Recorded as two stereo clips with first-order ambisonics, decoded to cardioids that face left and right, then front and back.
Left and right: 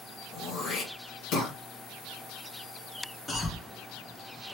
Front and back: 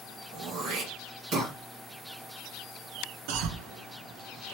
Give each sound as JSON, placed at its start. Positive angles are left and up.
{"t": 0.3, "sound": "throat clearing", "azimuth_deg": 140, "distance_m": 2.0}
{"t": 3.3, "sound": "a cough", "azimuth_deg": 165, "distance_m": 0.7}